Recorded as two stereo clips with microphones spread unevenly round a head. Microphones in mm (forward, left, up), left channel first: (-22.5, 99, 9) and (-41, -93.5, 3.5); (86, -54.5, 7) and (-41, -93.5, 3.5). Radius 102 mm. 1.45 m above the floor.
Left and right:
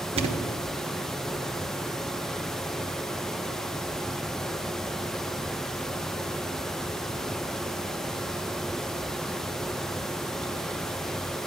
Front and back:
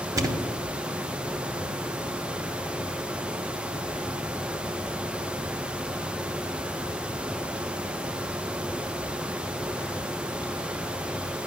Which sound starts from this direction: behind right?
A thud, at 0.2 s.